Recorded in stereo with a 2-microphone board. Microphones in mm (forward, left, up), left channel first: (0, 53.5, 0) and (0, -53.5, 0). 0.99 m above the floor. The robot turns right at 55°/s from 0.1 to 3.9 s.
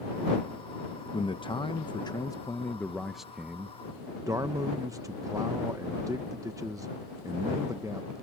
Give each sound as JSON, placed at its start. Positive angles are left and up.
{"t": 1.1, "sound": "a man speaking", "azimuth_deg": 70}